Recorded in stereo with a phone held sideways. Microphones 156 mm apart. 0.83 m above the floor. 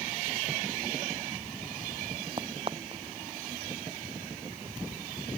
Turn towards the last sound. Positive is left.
turn(degrees=-35)  # may be behind; listen again after turning